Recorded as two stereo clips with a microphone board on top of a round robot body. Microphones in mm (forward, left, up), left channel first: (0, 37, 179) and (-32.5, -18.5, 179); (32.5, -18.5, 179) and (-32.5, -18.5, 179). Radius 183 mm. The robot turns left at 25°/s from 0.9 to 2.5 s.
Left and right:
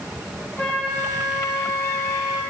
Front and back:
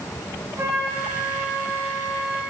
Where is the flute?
130° left, 3.5 m; by 2.4 s 90° left, 3.5 m.